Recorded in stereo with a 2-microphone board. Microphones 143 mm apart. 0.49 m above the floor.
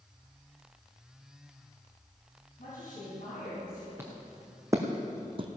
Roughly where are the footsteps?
Centre.